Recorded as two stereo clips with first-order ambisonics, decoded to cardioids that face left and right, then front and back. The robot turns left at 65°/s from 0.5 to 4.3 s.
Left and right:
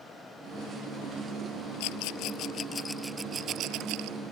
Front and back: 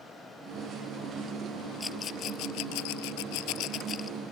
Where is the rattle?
80° left; by 4.2 s 75° right.